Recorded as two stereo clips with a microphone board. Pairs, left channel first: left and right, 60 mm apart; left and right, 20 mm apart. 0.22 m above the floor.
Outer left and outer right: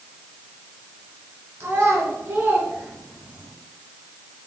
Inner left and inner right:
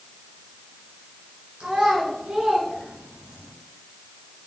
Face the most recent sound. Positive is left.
turn(degrees=-20)  # may be behind; listen again after turning